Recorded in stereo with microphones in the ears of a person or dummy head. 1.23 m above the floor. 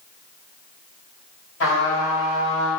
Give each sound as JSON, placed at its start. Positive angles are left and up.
{"t": 1.6, "sound": "a trumpet", "side_deg": 65, "distance_m": 1.8}